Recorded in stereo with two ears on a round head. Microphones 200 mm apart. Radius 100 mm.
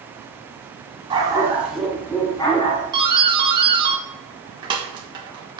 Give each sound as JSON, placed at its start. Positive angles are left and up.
{"t": 1.1, "sound": "a dog barking", "side_deg": -20, "distance_m": 1.7}
{"t": 2.9, "sound": "a doorbell", "side_deg": -20, "distance_m": 1.2}